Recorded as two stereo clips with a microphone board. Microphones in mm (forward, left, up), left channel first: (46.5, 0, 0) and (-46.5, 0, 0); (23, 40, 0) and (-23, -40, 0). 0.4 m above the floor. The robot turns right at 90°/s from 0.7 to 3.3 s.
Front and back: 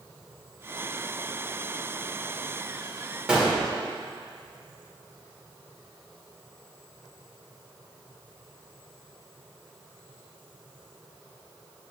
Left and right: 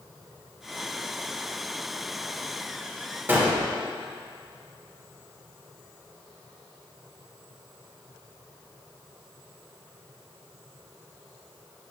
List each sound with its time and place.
3.3 s a gunshot: 115° right, 1.4 m